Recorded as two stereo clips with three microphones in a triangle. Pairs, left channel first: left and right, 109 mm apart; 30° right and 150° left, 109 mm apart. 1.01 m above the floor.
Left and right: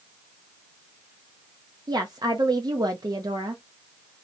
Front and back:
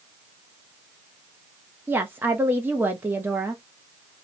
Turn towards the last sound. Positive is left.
turn(degrees=-140)